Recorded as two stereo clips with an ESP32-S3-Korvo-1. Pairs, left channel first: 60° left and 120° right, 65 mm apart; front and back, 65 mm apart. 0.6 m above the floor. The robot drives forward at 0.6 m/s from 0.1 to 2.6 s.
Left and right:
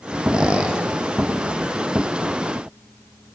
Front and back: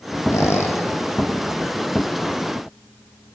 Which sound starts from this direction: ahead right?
A squeak, at 0.3 s.